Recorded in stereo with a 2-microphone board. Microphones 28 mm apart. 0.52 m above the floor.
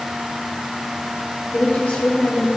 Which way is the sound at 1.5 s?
70° left (ahead or behind).